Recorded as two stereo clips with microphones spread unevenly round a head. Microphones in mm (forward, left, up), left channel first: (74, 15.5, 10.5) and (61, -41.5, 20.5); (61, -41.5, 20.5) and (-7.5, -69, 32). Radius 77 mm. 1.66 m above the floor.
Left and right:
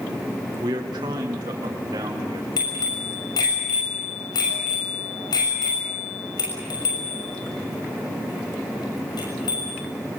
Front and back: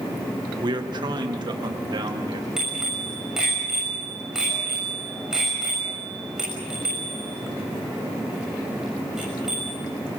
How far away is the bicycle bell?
About 6.5 m.